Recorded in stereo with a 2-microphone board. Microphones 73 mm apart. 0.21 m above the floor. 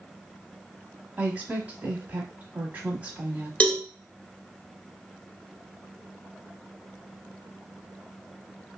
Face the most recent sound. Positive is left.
turn(degrees=15)  # may be behind; listen again after turning